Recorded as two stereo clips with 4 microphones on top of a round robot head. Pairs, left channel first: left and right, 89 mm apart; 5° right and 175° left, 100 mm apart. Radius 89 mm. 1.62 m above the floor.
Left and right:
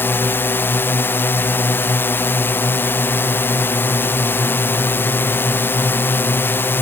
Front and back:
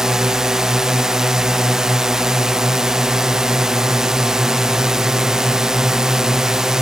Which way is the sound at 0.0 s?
95° left.